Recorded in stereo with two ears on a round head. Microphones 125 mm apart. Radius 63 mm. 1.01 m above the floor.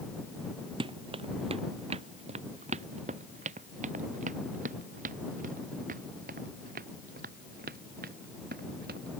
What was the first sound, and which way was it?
Running footsteps, 40° right (ahead or behind).